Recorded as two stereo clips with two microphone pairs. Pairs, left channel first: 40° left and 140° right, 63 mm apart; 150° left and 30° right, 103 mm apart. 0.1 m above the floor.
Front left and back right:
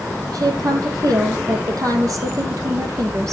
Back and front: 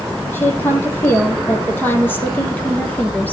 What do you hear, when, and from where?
0.3 s a woman speaking: 140° right, 4 m